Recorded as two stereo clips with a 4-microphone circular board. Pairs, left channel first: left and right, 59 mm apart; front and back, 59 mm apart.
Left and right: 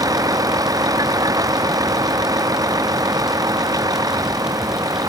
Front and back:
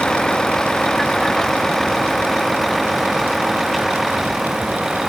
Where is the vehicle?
80° right; by 5.1 s 95° right.